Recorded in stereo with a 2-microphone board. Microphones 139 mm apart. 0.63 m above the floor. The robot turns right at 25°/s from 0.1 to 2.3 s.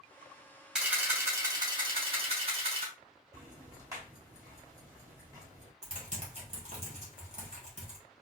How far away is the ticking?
About 2.5 m.